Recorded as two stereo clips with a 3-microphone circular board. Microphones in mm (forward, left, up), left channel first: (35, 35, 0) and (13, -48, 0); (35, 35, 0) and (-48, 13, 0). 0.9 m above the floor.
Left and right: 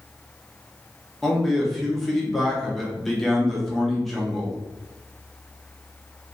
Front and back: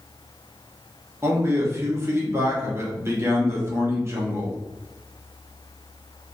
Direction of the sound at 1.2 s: 160° left.